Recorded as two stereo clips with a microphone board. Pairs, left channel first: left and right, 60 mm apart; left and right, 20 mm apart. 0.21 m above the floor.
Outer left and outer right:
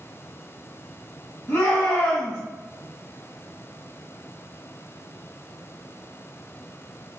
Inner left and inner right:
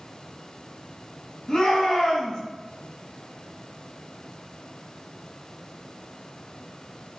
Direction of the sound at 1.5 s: 30° left (ahead or behind).